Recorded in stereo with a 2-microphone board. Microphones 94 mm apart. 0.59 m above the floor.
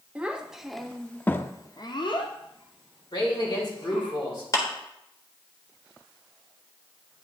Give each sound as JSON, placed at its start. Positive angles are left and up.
{"t": 0.1, "sound": "a child speaking", "side_deg": -15, "distance_m": 0.9}
{"t": 3.1, "sound": "a man speaking", "side_deg": 50, "distance_m": 2.5}
{"t": 4.5, "sound": "a clap", "side_deg": 35, "distance_m": 1.5}